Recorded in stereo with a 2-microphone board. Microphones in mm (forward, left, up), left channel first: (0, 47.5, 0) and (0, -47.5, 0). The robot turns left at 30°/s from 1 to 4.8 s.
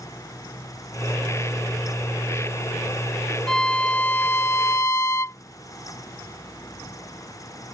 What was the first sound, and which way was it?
A violin, 170° left.